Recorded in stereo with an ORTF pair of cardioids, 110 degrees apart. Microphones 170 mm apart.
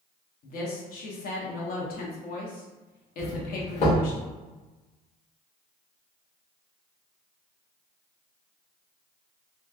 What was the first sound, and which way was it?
A woman speaking, 60° left.